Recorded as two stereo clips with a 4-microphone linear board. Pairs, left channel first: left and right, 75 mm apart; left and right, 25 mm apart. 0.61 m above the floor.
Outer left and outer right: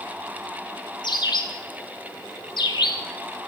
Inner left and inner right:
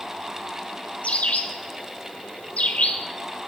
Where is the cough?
I don't hear a cough.